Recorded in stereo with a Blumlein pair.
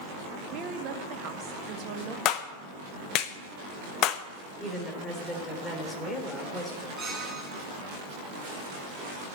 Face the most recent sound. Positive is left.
turn(degrees=-15)